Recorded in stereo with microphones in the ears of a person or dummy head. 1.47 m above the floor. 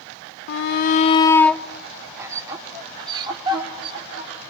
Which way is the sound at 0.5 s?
75° left (ahead or behind).